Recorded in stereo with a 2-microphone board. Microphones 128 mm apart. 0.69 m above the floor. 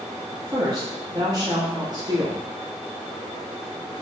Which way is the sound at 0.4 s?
30° right (ahead or behind).